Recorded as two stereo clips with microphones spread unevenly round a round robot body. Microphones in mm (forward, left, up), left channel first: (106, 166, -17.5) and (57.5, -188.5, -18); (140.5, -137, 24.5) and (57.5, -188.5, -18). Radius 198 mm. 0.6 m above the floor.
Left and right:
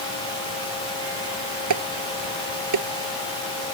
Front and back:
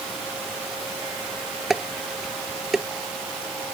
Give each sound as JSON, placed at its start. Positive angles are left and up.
{"t": 1.7, "sound": "dishes clattering", "azimuth_deg": -60}